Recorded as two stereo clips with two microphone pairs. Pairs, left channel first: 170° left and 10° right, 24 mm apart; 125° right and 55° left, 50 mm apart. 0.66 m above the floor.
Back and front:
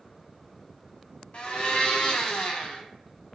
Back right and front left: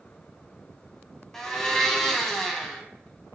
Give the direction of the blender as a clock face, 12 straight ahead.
7 o'clock.